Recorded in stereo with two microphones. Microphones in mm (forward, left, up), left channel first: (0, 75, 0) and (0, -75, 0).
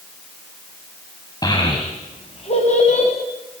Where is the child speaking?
30° left (ahead or behind), 2.5 m; by 3.1 s 55° left (ahead or behind), 3 m.